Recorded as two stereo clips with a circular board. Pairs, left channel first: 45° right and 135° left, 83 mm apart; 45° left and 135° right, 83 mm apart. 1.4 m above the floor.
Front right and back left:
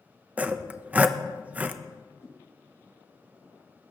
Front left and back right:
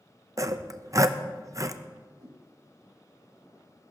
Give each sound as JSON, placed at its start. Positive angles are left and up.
{"t": 0.4, "sound": "sawing", "azimuth_deg": -160, "distance_m": 0.6}
{"t": 2.2, "sound": "a whoosh", "azimuth_deg": -95, "distance_m": 1.9}